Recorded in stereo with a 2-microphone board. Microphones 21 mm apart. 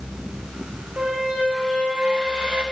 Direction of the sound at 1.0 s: 75° right (ahead or behind).